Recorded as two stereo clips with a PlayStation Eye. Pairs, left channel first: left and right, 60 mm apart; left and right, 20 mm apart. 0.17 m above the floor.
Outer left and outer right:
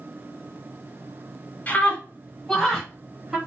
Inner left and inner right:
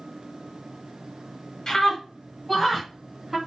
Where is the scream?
30° left (ahead or behind), 1.6 m; by 3.4 s 10° right (ahead or behind), 2.0 m.